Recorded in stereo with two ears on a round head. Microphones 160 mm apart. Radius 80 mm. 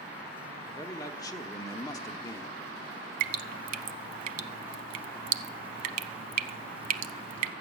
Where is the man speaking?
20° left (ahead or behind), 1.0 m.